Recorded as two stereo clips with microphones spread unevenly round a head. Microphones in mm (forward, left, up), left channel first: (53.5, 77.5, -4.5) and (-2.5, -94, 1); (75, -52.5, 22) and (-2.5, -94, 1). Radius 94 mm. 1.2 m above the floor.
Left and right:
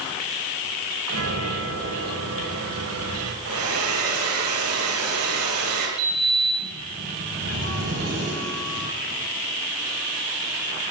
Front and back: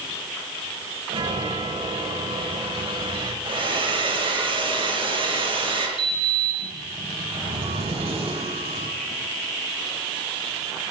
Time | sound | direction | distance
1.1 | a chime | 130° right | 7.5 m
3.5 | a hair dryer | 125° right | 9 m
6.0 | a sliding door | 145° right | 8.5 m